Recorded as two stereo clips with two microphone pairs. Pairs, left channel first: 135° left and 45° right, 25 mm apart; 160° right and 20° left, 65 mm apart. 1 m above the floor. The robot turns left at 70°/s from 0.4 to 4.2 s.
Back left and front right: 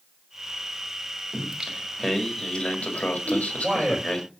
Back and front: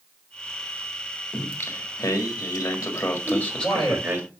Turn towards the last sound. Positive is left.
turn(degrees=-155)